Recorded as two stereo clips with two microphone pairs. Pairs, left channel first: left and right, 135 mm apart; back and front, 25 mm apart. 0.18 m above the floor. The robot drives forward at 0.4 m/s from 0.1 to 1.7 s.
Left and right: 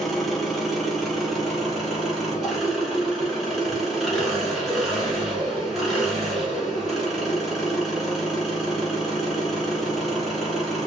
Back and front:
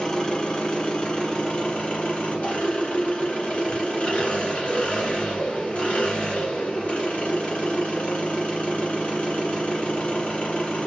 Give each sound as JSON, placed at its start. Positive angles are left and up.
{"t": 0.0, "sound": "an engine running", "azimuth_deg": 180, "distance_m": 1.1}